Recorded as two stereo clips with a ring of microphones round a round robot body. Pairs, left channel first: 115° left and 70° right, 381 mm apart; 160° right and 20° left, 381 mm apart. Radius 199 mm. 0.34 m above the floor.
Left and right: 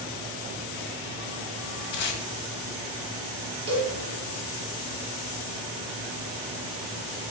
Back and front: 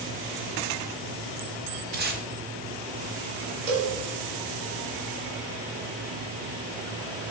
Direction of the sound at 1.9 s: 90° left.